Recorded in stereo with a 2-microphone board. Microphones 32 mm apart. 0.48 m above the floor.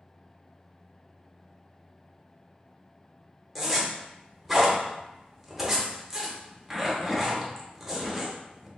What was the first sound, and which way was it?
A zipper, centre (ahead or behind).